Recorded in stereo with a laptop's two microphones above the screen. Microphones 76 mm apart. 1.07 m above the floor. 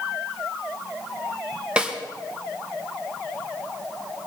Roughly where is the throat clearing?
No throat clearing in this recording.